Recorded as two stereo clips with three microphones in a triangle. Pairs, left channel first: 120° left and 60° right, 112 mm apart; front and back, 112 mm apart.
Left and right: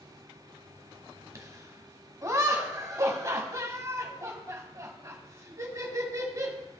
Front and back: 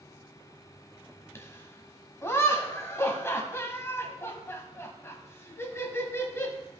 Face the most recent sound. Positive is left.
turn(degrees=-40)